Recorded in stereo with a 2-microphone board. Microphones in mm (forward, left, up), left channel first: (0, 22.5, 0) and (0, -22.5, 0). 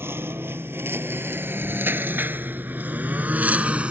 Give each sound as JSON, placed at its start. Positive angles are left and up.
{"t": 0.0, "sound": "a lawn mower", "side_deg": -60}